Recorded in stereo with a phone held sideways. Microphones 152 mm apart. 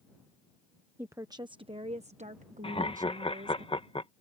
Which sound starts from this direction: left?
Laughter, at 2.6 s.